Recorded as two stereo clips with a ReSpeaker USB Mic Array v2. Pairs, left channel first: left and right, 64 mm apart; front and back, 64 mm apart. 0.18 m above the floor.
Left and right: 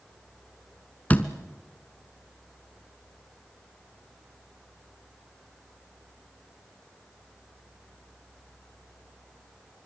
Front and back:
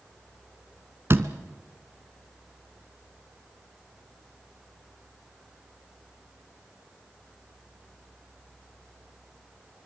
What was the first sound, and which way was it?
A door slam, 150° left.